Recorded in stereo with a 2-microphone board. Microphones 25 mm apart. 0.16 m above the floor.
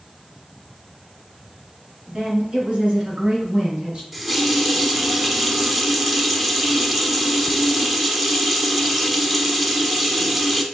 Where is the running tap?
10° right (ahead or behind), 0.7 m.